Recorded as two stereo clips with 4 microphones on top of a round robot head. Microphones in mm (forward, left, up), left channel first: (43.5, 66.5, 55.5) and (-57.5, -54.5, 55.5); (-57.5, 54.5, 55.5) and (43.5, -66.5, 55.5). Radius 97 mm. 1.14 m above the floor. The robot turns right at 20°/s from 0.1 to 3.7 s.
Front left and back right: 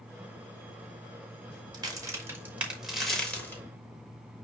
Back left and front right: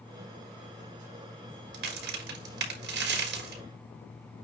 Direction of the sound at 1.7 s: 65° right.